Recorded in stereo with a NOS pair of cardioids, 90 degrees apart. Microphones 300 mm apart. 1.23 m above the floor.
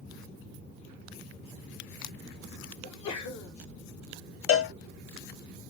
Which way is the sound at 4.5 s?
50° left.